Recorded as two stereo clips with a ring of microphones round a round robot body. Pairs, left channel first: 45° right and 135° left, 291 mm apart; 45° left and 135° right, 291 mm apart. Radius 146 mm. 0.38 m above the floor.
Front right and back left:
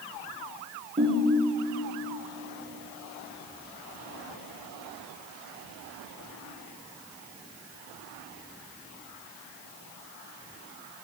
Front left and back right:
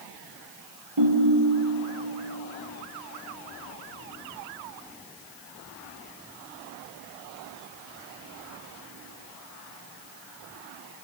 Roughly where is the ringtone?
Behind right.